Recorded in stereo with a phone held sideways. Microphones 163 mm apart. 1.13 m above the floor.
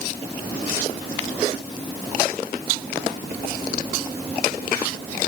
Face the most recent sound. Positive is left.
No sound to turn to.